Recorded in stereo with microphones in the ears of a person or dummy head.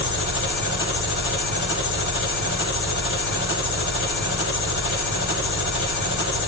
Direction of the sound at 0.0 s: 80° left.